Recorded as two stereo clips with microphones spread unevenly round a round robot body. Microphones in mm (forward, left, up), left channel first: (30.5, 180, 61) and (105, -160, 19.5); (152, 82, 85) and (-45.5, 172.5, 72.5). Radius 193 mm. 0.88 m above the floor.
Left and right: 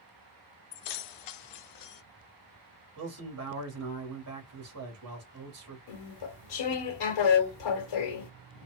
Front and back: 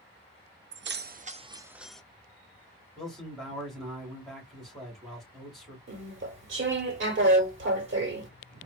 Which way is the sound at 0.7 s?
120° left.